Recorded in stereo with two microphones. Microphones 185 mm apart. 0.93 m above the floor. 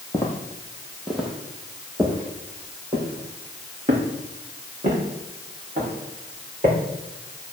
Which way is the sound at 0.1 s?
15° left (ahead or behind).